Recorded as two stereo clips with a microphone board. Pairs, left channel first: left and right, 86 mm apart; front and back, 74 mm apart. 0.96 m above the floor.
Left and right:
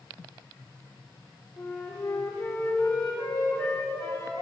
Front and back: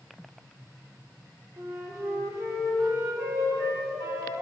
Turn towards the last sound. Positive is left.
turn(degrees=140)